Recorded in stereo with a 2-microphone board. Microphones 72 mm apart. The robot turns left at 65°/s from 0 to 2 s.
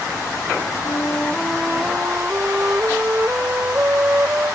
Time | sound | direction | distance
0.8 | a flute | 45° left | ?